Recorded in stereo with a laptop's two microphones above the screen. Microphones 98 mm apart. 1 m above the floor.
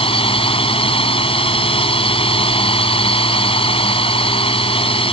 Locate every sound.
0.0 s a drone: 70° left (ahead or behind)